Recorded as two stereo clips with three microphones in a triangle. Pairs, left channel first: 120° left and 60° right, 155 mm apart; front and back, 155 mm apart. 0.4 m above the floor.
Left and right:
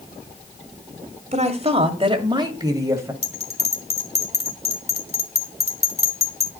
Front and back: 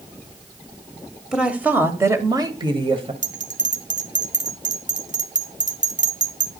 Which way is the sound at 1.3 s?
95° right.